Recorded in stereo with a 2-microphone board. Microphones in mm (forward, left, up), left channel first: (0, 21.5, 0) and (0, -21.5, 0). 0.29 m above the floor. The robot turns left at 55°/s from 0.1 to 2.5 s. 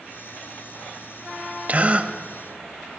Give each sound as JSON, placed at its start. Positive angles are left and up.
{"t": 1.7, "sound": "a gasp", "side_deg": -35, "distance_m": 0.9}